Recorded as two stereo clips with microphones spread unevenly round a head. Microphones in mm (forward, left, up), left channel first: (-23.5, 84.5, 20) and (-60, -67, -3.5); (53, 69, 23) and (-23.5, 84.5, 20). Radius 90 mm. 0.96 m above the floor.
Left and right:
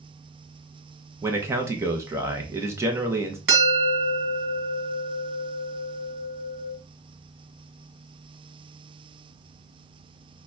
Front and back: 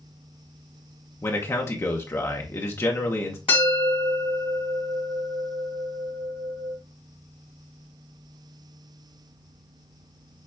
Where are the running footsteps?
No running footsteps in this recording.